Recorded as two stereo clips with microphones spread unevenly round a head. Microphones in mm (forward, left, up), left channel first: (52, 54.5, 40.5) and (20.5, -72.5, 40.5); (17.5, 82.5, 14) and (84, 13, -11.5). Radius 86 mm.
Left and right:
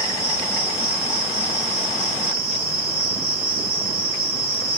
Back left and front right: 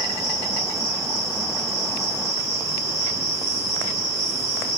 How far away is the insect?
About 1.1 m.